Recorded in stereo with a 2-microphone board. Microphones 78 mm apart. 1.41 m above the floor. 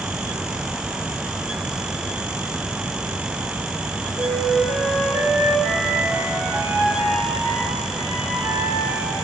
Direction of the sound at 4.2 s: 35° right (ahead or behind).